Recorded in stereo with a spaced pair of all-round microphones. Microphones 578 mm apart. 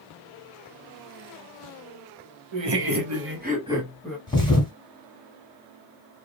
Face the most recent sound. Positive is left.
turn(degrees=10)  # may be behind; listen again after turning